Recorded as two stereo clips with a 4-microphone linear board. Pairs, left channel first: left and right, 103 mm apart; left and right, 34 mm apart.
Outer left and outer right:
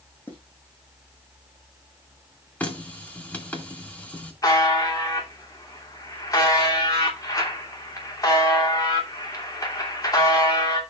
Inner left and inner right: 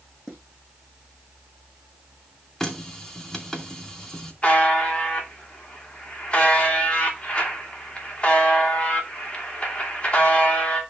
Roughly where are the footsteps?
Centre.